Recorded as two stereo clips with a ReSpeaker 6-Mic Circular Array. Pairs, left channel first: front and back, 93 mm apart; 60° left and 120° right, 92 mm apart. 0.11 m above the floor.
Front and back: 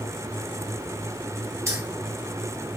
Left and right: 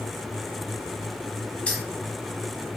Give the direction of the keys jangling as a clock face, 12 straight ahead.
8 o'clock.